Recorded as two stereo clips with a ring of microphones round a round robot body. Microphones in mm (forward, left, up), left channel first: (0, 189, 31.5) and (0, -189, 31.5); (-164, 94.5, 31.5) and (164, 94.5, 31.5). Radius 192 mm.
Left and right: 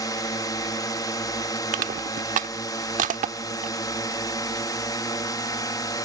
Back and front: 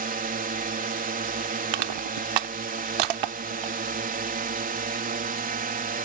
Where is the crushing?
20° right.